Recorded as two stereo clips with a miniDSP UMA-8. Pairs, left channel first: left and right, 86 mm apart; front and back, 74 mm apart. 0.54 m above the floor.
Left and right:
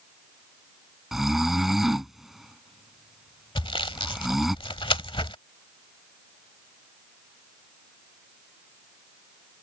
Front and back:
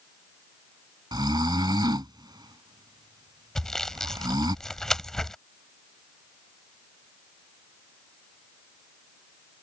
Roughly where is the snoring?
Behind.